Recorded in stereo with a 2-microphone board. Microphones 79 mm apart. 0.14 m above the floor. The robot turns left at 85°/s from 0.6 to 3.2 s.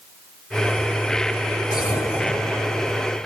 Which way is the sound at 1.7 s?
65° left.